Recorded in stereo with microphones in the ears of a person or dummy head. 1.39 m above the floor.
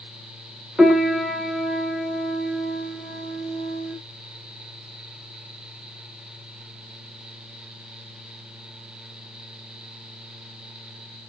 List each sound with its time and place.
0.8 s a piano: 5° right (ahead or behind), 1.4 m